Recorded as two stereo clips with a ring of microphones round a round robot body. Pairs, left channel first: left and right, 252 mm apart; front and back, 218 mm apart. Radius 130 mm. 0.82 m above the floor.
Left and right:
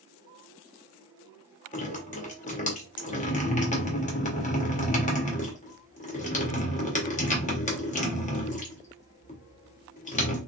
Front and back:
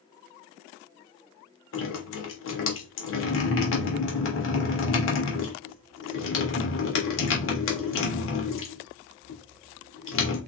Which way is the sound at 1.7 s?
25° left.